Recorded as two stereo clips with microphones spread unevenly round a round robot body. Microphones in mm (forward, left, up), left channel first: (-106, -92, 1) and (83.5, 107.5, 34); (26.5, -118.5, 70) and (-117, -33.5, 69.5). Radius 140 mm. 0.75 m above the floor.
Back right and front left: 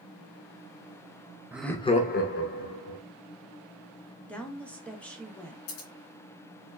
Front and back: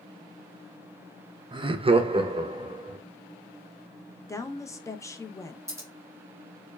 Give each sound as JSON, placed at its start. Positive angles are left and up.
{"t": 1.5, "sound": "laughter", "azimuth_deg": 135, "distance_m": 0.5}
{"t": 4.3, "sound": "a woman speaking", "azimuth_deg": -75, "distance_m": 0.6}
{"t": 5.7, "sound": "scissors", "azimuth_deg": -140, "distance_m": 1.5}